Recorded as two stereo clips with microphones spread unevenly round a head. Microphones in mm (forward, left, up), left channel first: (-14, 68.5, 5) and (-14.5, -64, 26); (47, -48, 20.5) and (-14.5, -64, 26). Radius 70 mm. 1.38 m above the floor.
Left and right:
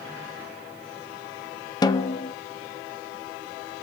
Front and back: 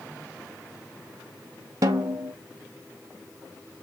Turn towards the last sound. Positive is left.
turn(degrees=145)